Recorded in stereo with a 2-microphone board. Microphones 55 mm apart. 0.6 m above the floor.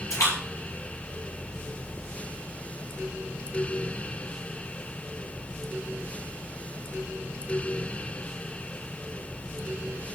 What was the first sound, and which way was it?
A splash, 80° left.